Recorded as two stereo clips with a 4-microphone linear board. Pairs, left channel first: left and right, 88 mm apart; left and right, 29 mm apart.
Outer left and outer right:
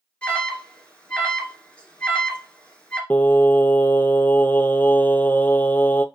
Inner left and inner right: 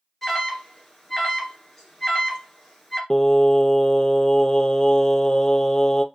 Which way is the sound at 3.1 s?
20° left (ahead or behind).